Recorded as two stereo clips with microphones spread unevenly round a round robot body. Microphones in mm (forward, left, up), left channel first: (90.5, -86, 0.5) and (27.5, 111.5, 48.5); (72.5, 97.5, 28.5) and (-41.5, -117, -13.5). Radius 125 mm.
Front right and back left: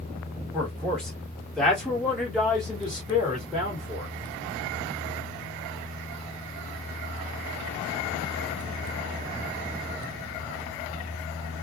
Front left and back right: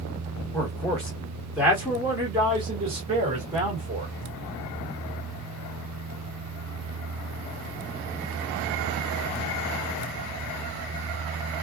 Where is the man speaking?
25° right, 1.5 m; by 4.1 s 150° right, 2 m.